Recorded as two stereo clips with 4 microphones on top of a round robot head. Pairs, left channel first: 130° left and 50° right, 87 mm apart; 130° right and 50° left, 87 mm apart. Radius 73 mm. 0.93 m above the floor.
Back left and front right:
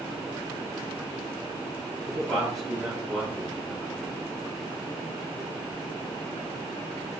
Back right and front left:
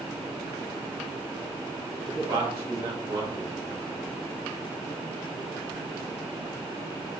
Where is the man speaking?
40° left, 2.5 m.